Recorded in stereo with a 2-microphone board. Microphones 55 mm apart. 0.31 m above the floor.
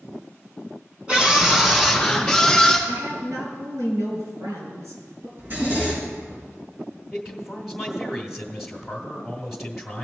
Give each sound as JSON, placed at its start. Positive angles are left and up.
{"t": 1.1, "sound": "a scream", "side_deg": -20, "distance_m": 3.0}
{"t": 2.9, "sound": "a woman speaking", "side_deg": -80, "distance_m": 4.0}
{"t": 5.4, "sound": "a zipper", "side_deg": -40, "distance_m": 5.0}
{"t": 7.1, "sound": "a man speaking", "side_deg": -5, "distance_m": 1.2}